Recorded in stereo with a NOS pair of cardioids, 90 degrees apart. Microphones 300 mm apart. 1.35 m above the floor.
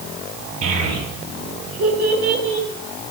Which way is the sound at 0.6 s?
55° right.